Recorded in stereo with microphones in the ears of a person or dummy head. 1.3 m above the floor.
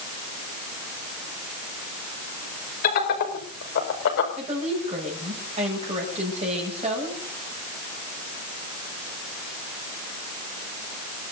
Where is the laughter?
50° left (ahead or behind), 6 m; by 4.3 s 65° left (ahead or behind), 5 m.